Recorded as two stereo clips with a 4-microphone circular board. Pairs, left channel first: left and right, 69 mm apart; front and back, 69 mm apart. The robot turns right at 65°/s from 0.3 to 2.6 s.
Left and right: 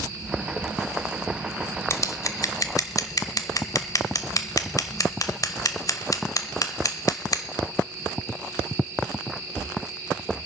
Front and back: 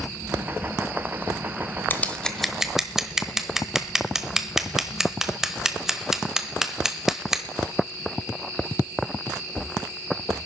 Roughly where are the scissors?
Ahead left.